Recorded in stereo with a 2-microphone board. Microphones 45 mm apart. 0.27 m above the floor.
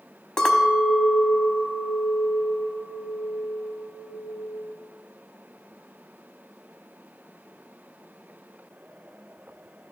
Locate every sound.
0.4 s a clink: 15° left (ahead or behind), 0.9 m